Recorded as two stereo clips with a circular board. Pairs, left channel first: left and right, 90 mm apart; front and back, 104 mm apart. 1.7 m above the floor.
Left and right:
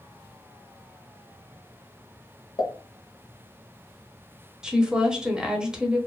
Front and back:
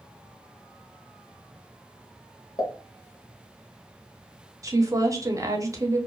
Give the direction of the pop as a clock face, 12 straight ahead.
10 o'clock.